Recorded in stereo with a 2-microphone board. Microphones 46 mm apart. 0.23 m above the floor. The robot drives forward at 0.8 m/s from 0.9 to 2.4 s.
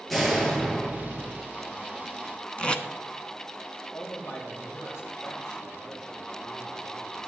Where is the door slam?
5° left (ahead or behind), 3 m.